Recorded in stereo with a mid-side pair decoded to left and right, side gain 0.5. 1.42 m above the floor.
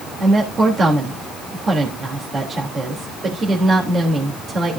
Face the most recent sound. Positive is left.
turn(degrees=-40)